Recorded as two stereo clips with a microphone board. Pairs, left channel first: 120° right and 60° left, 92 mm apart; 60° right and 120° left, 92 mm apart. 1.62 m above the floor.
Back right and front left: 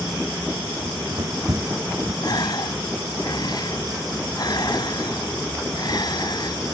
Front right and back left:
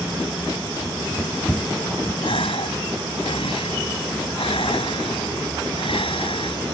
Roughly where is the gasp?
Right.